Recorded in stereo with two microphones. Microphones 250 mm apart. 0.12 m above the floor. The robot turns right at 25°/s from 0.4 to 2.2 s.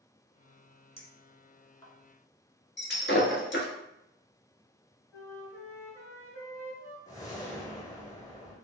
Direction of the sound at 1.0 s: 20° left (ahead or behind).